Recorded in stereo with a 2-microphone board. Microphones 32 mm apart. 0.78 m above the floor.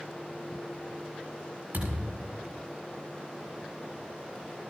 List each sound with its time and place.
1.7 s a thud: 80° right, 6.5 m